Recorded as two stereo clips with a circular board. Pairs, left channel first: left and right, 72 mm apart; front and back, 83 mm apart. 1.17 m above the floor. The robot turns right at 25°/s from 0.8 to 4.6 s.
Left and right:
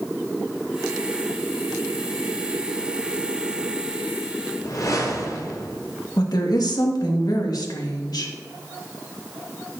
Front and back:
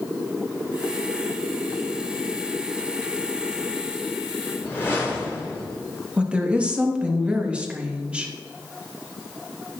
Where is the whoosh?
60° left, 4 m.